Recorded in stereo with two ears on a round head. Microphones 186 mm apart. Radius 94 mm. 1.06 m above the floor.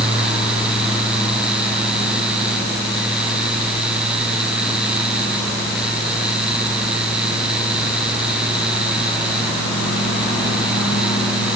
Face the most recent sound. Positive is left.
No sound to turn to.